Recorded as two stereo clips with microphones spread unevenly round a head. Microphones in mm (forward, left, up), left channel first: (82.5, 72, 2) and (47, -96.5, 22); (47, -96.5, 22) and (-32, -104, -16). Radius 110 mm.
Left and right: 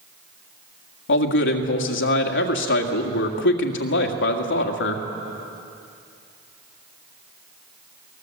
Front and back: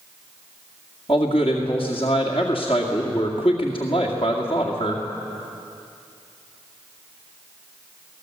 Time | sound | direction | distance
1.1 | a man speaking | 80° left | 2 m